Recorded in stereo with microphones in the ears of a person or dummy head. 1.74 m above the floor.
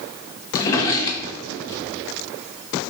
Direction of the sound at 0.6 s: 20° left (ahead or behind).